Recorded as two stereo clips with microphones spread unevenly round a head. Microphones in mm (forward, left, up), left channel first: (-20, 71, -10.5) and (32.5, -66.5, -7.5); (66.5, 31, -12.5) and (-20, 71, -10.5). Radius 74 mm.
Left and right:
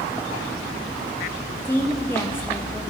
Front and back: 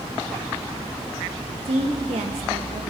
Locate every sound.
1.6 s a woman speaking: 175° right, 1.5 m